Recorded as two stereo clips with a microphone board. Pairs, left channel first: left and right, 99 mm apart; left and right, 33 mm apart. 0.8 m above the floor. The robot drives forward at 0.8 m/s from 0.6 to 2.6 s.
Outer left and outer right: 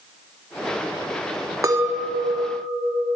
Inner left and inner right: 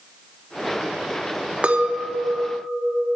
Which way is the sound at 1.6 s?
35° right (ahead or behind).